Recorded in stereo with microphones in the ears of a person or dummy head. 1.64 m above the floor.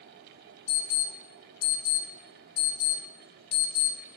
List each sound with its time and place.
0.7 s an alarm: 85° left, 5.5 m